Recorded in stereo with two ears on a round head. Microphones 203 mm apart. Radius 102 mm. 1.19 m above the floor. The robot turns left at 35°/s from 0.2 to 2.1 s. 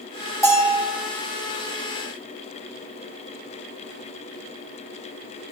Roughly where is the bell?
Centre.